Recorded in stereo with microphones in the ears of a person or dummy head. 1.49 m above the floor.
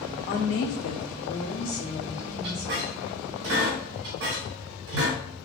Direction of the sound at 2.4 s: 55° right (ahead or behind).